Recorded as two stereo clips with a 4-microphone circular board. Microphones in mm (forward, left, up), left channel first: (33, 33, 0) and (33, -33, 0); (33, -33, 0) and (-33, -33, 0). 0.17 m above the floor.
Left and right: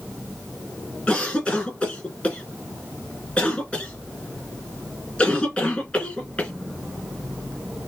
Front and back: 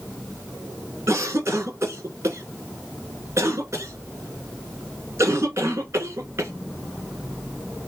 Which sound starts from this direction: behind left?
A cough, at 1.1 s.